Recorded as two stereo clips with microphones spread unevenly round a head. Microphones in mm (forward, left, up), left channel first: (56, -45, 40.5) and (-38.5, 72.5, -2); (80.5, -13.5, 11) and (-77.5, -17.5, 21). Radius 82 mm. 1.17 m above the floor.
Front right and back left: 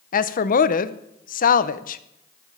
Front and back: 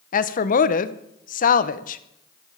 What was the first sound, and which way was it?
A woman speaking, 15° right.